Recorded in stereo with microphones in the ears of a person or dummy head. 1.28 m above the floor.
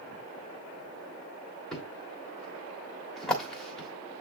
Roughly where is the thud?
Centre.